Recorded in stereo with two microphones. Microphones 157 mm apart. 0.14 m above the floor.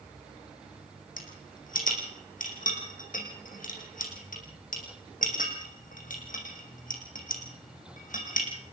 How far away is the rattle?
About 3.5 m.